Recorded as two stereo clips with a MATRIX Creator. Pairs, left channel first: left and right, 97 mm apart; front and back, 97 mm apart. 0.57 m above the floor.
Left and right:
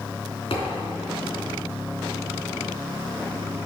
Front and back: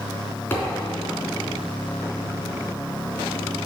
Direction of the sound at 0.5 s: 70° left.